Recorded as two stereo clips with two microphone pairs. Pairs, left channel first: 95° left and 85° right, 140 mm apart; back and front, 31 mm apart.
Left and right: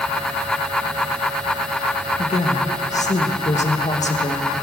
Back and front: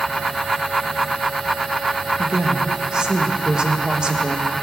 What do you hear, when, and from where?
2.2 s a woman speaking: 65° left, 1.4 m